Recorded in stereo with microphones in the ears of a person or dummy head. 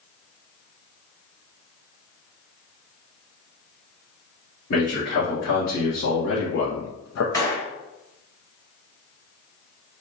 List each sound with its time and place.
4.7 s a man speaking: 60° left (ahead or behind), 1.7 m; by 7.2 s 70° left (ahead or behind), 0.6 m
7.3 s a gunshot: 25° left (ahead or behind), 1.1 m